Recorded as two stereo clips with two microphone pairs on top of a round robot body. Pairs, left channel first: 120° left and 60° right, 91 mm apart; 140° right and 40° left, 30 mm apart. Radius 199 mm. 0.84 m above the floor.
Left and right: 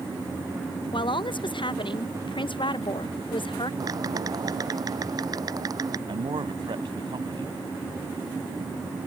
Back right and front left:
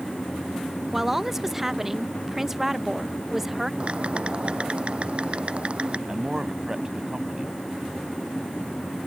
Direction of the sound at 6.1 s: 30° right.